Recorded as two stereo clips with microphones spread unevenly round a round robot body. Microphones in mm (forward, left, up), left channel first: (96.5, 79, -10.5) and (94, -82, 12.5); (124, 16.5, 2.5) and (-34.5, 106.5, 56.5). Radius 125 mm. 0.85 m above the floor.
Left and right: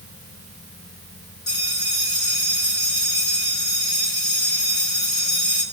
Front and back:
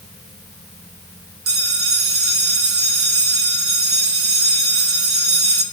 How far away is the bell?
About 1.8 m.